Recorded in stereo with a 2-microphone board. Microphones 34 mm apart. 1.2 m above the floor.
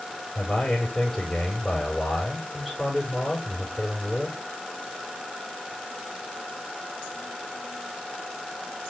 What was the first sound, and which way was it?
A man speaking, 10° left (ahead or behind).